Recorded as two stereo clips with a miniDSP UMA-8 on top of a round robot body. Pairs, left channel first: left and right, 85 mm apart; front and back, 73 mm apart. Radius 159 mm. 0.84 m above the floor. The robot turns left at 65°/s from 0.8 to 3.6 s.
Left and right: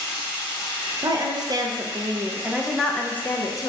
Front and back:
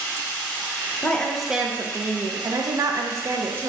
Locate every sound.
0.0 s running water: 55° right, 2.0 m; by 3.7 s 120° left, 2.0 m
1.0 s a woman speaking: 65° right, 0.7 m; by 3.7 s 125° left, 0.7 m